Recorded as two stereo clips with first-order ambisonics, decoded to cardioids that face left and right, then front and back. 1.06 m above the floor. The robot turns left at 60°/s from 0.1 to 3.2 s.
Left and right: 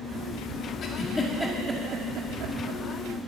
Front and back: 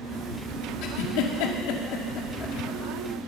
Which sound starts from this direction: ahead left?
A giggle, at 0.8 s.